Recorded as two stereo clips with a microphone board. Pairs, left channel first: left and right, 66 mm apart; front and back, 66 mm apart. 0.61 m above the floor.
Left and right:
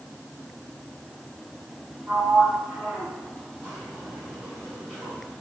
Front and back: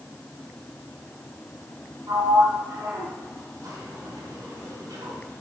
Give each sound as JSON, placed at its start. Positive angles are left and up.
{"t": 2.1, "sound": "a sliding door", "azimuth_deg": -150, "distance_m": 3.5}